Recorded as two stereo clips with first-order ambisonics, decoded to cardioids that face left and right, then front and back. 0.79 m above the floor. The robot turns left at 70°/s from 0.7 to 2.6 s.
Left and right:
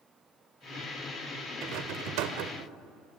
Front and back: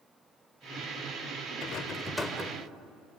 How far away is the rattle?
About 1.6 m.